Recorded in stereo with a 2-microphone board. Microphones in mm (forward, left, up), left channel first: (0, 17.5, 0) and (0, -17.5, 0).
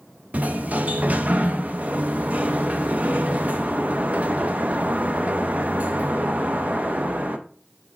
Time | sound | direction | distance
0.3 | a sliding door | 50° right (ahead or behind) | 0.6 m